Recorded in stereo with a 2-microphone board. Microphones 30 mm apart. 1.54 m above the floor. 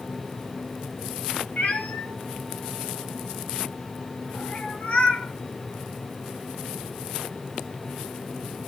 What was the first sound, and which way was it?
A cat meowing, 50° left (ahead or behind).